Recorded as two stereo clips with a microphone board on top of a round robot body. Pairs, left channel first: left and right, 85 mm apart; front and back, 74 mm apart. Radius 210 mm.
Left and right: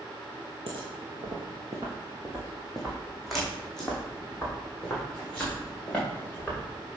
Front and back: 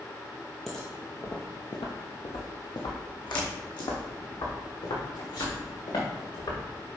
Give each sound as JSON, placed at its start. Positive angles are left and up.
{"t": 0.7, "sound": "footsteps", "azimuth_deg": -90, "distance_m": 0.8}